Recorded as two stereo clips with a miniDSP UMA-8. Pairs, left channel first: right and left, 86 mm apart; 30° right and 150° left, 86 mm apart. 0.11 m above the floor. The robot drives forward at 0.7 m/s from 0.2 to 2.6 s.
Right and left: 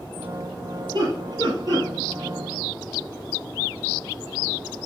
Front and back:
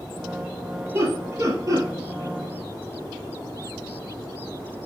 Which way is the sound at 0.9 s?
105° left.